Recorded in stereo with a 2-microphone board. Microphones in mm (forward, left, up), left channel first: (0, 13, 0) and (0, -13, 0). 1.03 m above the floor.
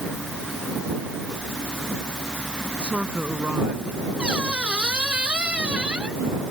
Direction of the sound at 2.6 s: 55° right (ahead or behind).